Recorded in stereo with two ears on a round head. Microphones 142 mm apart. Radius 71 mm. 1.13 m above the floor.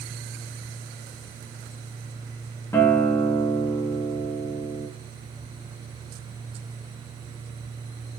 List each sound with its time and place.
2.7 s a guitar: 15° left (ahead or behind), 0.5 m